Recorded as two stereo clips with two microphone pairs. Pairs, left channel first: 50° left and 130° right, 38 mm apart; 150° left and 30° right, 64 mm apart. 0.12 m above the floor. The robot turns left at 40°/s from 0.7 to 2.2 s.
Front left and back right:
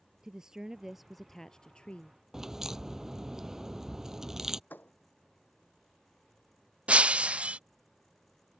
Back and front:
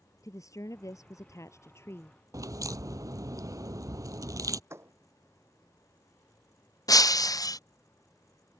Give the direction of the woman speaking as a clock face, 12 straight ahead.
7 o'clock.